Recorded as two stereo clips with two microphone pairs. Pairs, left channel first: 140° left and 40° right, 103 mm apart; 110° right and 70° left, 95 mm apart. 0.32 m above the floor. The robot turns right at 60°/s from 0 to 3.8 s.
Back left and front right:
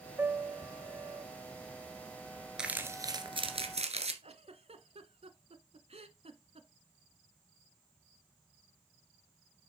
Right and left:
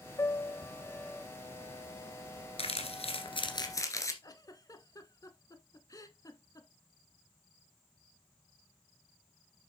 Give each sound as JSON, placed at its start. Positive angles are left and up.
{"t": 0.2, "sound": "a piano", "azimuth_deg": -100, "distance_m": 0.5}
{"t": 2.6, "sound": "crumpling", "azimuth_deg": -125, "distance_m": 1.5}
{"t": 4.2, "sound": "a giggle", "azimuth_deg": -60, "distance_m": 0.8}